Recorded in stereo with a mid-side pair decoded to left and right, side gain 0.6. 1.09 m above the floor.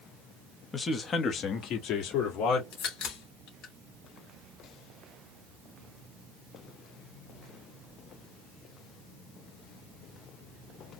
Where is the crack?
60° left, 2.5 m.